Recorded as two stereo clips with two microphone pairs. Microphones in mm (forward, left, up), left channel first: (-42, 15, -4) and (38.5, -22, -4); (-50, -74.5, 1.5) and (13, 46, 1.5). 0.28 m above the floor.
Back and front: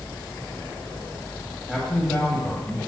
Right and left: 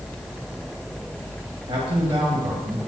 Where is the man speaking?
65° left, 1.7 m; by 2.8 s 105° left, 1.8 m.